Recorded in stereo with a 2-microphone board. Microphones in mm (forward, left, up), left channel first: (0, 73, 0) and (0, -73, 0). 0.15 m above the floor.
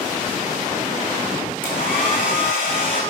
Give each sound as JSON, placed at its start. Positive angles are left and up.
{"t": 1.6, "sound": "a hair dryer", "side_deg": 70, "distance_m": 3.0}